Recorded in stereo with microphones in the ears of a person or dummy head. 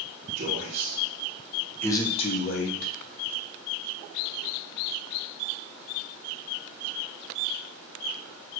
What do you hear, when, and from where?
0.4 s a man speaking: 50° right (ahead or behind), 1.7 m; by 2.9 s 60° left (ahead or behind), 1.5 m